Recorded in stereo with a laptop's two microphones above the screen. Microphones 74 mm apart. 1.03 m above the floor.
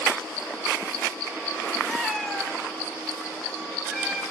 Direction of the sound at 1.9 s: 5° left (ahead or behind).